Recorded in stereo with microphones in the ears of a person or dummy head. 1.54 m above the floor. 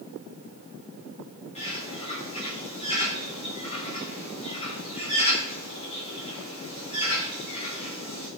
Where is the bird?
40° left (ahead or behind), 3 m.